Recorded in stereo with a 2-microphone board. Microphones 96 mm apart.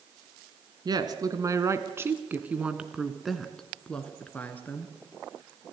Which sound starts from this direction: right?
A woman speaking, at 0.8 s.